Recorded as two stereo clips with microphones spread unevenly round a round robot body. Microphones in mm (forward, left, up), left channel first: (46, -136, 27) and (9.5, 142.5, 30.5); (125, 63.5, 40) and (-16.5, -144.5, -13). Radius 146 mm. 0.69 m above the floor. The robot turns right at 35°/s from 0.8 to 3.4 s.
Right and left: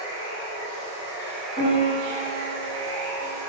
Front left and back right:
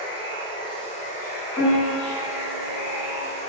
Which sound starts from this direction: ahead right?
A piano, at 1.6 s.